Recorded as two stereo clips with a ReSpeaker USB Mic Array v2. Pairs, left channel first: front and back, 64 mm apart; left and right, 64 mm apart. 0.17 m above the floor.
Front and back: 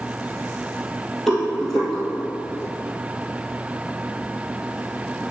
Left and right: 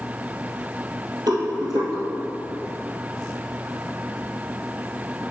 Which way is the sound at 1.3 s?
90° right.